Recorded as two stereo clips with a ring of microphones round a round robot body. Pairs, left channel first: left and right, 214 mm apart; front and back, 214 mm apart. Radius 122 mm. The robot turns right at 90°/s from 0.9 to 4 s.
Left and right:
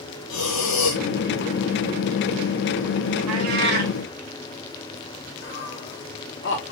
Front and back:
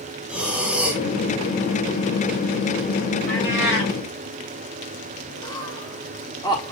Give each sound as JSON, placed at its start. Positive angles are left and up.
{"t": 0.3, "sound": "breathing", "azimuth_deg": 95, "distance_m": 1.7}
{"t": 3.3, "sound": "a cat meowing", "azimuth_deg": -90, "distance_m": 1.6}
{"t": 5.4, "sound": "laughter", "azimuth_deg": 70, "distance_m": 1.5}